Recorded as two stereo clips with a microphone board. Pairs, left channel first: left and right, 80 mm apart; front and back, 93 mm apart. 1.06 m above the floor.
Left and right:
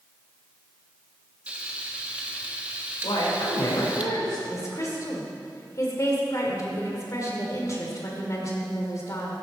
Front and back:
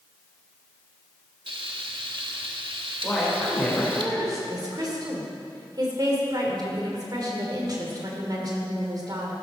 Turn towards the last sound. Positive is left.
turn(degrees=135)